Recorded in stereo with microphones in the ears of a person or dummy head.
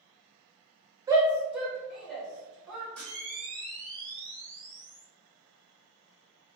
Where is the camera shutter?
10° left (ahead or behind), 1.4 m.